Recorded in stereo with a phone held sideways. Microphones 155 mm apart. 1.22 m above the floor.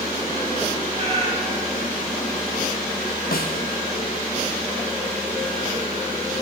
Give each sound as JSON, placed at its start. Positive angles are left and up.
{"t": 0.9, "sound": "a cat meowing", "side_deg": -45, "distance_m": 4.5}
{"t": 3.3, "sound": "a snare drum", "side_deg": 75, "distance_m": 2.0}